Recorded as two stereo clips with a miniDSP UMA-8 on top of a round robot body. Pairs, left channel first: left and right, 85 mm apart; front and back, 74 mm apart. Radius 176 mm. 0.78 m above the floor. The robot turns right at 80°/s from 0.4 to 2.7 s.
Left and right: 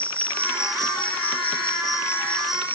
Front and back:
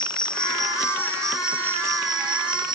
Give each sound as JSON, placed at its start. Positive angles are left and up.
{"t": 0.0, "sound": "an insect", "azimuth_deg": 15}